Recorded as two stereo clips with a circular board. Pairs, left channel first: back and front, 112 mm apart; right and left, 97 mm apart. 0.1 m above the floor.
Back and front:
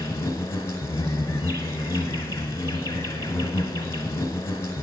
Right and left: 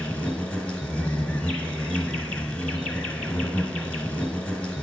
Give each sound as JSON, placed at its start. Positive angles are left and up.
{"t": 0.0, "sound": "an insect", "azimuth_deg": -160, "distance_m": 1.0}